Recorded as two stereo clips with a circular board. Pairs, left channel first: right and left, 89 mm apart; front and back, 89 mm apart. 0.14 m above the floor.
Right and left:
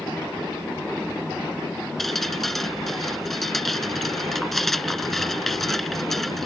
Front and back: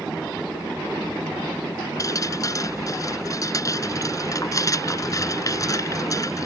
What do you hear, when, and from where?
2.0 s dripping: 5° right